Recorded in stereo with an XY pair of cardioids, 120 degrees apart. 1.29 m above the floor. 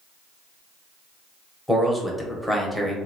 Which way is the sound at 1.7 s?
5° left.